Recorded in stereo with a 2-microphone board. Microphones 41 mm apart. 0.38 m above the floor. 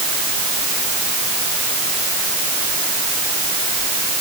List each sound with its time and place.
Only background noise.